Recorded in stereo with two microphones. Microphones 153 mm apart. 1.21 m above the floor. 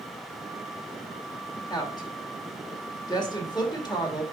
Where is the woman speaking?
30° left (ahead or behind), 1.9 m.